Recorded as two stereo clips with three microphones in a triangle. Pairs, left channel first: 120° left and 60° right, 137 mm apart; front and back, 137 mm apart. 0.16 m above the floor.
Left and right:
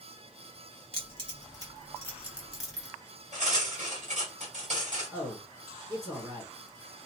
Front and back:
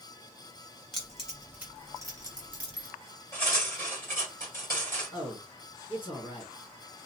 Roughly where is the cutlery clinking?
Right.